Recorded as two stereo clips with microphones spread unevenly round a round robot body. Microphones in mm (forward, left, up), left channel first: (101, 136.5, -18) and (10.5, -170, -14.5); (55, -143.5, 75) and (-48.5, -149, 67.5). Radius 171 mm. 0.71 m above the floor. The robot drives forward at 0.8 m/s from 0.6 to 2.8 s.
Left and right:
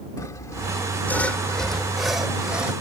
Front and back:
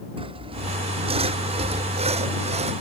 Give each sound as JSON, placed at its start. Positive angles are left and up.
{"t": 0.2, "sound": "sawing", "azimuth_deg": 155}